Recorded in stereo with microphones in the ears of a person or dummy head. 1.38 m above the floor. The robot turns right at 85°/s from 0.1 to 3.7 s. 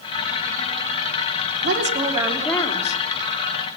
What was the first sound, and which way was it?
A woman speaking, 65° right.